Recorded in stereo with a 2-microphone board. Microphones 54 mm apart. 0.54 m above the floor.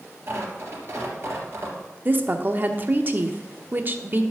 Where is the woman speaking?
40° right (ahead or behind), 0.9 m.